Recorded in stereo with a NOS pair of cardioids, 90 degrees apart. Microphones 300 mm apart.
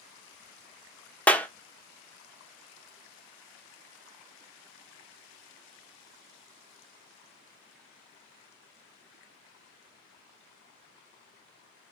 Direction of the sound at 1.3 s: 5° left.